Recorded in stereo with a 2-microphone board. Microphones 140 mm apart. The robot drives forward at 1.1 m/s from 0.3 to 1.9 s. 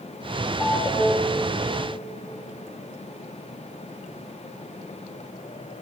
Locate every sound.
0.6 s a ringtone: 5° right (ahead or behind), 4.5 m